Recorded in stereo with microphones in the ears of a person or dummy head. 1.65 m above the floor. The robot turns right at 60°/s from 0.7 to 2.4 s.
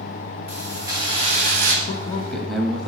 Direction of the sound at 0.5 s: 160° right.